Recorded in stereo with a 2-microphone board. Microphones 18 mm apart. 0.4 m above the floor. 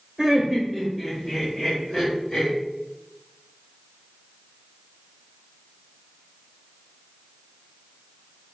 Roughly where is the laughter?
Centre.